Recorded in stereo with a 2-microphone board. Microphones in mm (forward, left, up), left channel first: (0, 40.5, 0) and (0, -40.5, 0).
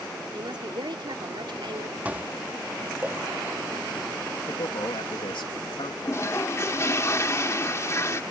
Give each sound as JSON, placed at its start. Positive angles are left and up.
{"t": 0.3, "sound": "a woman speaking", "side_deg": -70}
{"t": 2.0, "sound": "dishes clattering", "side_deg": -20}
{"t": 4.5, "sound": "a man speaking", "side_deg": 80}
{"t": 6.0, "sound": "a toilet flushing", "side_deg": 35}